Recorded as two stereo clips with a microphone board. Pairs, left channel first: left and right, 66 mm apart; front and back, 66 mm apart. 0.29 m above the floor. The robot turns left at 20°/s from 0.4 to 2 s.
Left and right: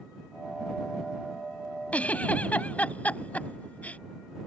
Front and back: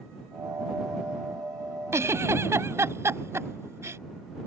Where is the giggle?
150° left.